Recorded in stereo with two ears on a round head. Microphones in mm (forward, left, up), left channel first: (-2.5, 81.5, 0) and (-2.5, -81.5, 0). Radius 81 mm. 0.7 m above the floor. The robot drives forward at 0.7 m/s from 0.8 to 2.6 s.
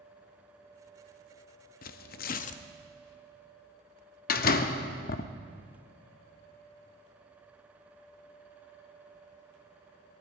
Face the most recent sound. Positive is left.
turn(degrees=50)  # may be behind; listen again after turning